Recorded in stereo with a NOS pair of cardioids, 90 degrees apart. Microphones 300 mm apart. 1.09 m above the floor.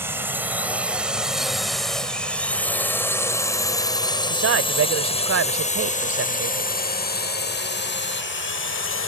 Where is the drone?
5° right; by 9.1 s 45° left.